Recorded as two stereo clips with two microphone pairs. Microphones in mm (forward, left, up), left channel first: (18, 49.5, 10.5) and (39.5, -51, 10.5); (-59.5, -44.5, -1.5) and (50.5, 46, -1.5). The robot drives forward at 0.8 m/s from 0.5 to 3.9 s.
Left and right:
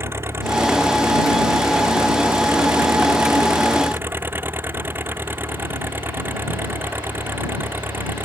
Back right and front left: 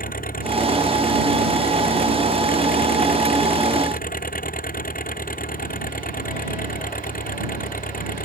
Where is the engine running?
145° right.